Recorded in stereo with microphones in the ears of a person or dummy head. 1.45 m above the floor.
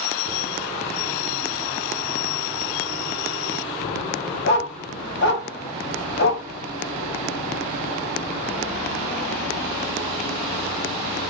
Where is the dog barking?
60° left (ahead or behind), 1.9 m.